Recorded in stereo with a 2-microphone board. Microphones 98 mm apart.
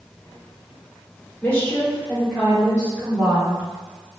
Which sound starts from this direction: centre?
A woman speaking, at 1.4 s.